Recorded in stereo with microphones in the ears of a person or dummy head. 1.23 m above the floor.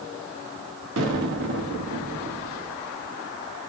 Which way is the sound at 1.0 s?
75° right (ahead or behind).